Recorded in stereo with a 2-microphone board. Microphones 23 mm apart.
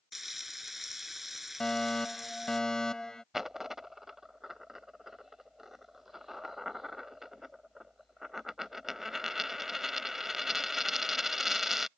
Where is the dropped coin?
15° right (ahead or behind).